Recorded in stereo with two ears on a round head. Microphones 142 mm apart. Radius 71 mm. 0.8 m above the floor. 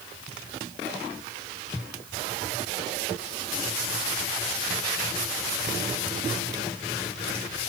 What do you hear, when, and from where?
Only background noise.